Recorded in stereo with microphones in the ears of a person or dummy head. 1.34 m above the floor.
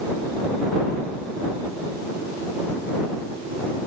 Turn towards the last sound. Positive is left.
No sound to turn to.